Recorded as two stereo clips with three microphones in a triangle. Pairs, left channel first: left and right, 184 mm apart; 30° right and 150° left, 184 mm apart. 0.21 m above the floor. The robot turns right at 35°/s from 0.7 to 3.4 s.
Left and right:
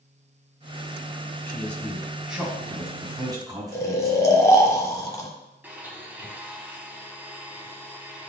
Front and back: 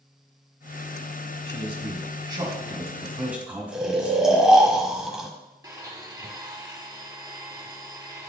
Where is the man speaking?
160° left, 1.7 m; by 4.5 s 135° right, 1.7 m.